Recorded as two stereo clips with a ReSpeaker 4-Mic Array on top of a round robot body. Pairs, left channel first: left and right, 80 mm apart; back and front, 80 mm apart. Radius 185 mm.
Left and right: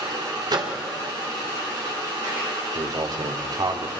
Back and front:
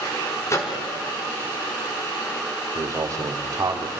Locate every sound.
0.5 s a microwave: 125° right, 2.5 m
2.8 s a man speaking: 50° right, 2.0 m